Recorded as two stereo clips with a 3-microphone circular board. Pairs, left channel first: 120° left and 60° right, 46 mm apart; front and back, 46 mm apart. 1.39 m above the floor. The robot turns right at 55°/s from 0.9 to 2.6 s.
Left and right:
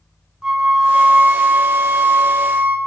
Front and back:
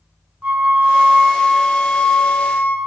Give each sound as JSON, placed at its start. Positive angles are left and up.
{"t": 0.4, "sound": "a flute", "azimuth_deg": -125, "distance_m": 1.1}